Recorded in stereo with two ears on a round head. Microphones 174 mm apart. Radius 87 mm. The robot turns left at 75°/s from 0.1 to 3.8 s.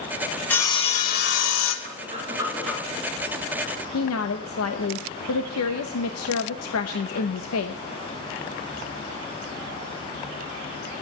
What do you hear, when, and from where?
0.5 s sawing: 175° left, 1.6 m; by 1.8 s 80° left, 1.6 m
1.9 s breathing: 120° right, 2.5 m; by 2.8 s 170° left, 2.5 m
3.9 s a woman speaking: 85° left, 0.9 m